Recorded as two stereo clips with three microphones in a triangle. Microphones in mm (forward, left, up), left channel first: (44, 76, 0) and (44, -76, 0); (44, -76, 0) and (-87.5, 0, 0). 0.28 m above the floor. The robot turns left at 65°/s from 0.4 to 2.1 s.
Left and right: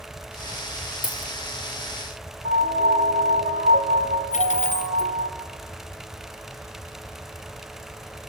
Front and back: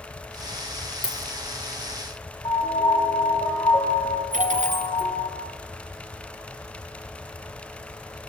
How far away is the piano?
About 2 m.